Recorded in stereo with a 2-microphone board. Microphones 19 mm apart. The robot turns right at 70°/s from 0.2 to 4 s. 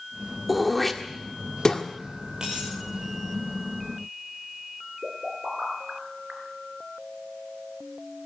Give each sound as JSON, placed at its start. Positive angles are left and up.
{"t": 0.5, "sound": "throat clearing", "side_deg": -5, "distance_m": 1.7}
{"t": 2.4, "sound": "a dropped coin", "side_deg": -35, "distance_m": 8.0}
{"t": 5.0, "sound": "a pop", "side_deg": -55, "distance_m": 4.5}